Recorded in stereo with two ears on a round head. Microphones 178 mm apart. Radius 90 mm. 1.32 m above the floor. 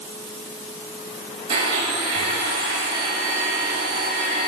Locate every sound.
1.5 s a blender: 30° right (ahead or behind), 2 m